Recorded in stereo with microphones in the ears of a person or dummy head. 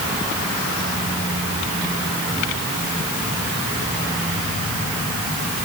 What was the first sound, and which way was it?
Only background noise.